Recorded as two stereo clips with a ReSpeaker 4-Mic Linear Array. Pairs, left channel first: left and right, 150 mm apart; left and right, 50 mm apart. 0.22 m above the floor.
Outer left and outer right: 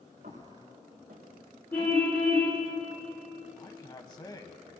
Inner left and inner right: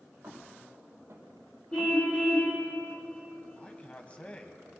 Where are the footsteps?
75° right (ahead or behind), 4.5 m; by 2.7 s 85° right, 5.5 m.